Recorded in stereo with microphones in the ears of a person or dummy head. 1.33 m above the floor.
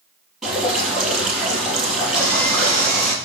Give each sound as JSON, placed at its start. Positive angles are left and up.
{"t": 0.4, "sound": "dripping", "side_deg": 0, "distance_m": 6.0}
{"t": 2.1, "sound": "sawing", "side_deg": 15, "distance_m": 2.5}